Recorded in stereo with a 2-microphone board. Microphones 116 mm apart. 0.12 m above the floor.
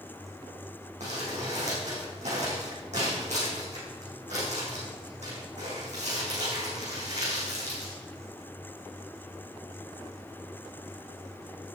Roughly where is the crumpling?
Right.